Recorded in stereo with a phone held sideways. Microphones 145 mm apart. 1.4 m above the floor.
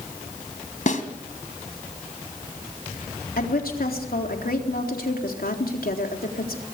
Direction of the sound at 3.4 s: 85° left.